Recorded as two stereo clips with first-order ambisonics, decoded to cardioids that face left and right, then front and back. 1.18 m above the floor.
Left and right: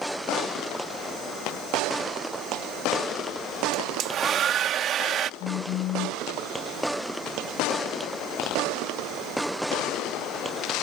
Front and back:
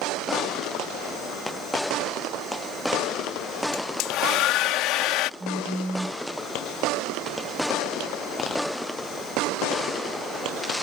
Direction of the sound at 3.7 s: 35° right.